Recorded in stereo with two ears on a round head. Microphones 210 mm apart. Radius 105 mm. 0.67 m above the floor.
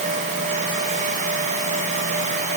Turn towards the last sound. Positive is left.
No sound to turn to.